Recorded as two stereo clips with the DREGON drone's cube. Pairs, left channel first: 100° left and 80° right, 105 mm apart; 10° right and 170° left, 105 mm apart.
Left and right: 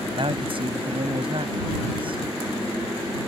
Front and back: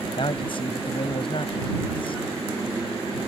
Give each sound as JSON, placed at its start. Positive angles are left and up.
{"t": 0.2, "sound": "a man speaking", "azimuth_deg": -45}